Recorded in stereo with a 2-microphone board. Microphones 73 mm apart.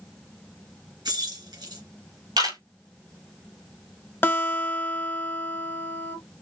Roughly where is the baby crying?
I don't hear a baby crying.